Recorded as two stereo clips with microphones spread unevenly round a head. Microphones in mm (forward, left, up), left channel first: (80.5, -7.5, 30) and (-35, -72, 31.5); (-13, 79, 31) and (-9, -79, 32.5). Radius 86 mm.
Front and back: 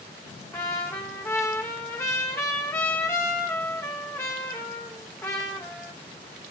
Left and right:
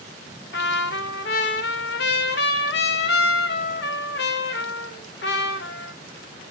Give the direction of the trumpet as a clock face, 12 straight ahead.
9 o'clock.